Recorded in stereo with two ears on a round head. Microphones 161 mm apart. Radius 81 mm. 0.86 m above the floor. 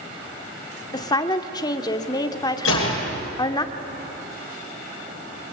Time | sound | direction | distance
0.9 | a woman speaking | 25° left (ahead or behind) | 1.8 m
2.6 | a gunshot | 85° left | 7.5 m